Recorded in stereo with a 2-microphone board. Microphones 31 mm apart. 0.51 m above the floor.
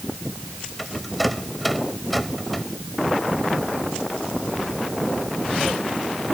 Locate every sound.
0.8 s a rattle: centre (ahead or behind)